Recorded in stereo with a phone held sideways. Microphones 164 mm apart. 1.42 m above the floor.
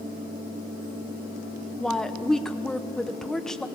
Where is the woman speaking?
5° left (ahead or behind), 0.9 m.